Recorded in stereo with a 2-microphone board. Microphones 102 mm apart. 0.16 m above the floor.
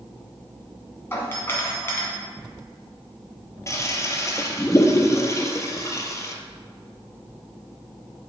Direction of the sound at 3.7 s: 30° left (ahead or behind).